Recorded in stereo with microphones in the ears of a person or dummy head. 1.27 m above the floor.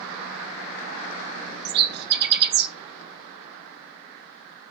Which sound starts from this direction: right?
A bird, at 1.6 s.